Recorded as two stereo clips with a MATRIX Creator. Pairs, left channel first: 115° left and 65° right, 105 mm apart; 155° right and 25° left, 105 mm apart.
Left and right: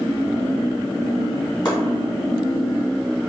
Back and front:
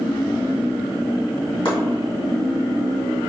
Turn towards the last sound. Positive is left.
turn(degrees=160)